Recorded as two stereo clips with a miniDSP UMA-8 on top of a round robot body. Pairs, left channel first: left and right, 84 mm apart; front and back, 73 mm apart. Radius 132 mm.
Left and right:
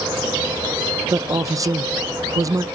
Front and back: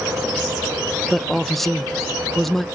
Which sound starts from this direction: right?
A man speaking, at 1.1 s.